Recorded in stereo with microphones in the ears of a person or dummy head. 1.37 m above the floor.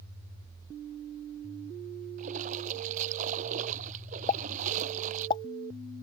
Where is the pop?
25° left (ahead or behind).